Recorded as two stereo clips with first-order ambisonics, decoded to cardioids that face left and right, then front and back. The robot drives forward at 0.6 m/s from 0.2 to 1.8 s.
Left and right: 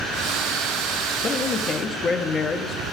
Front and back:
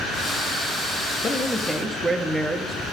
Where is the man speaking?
55° left, 0.7 m; by 2.8 s 115° left, 0.6 m.